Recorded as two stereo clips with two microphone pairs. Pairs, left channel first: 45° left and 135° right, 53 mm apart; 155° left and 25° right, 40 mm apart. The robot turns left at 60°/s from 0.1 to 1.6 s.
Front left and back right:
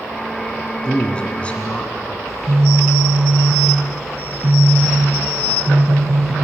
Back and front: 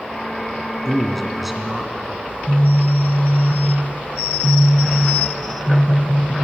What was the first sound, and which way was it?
A man speaking, 90° left.